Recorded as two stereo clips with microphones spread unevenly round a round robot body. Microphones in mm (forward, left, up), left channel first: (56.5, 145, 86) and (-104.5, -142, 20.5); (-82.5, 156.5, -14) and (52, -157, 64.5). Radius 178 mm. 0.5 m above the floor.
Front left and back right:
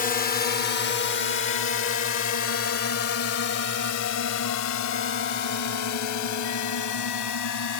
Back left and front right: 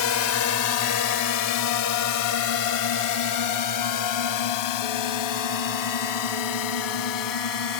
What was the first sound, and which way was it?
A drone, 130° left.